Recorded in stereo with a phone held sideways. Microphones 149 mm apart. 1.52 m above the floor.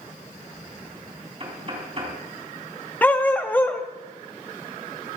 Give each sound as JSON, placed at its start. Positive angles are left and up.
{"t": 1.4, "sound": "knocking", "side_deg": -40, "distance_m": 4.0}
{"t": 3.0, "sound": "a dog barking", "side_deg": 10, "distance_m": 0.9}